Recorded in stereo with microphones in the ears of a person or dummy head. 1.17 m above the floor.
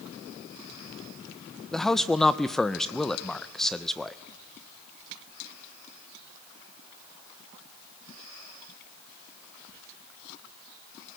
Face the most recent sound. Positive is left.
turn(degrees=5)  # may be behind; listen again after turning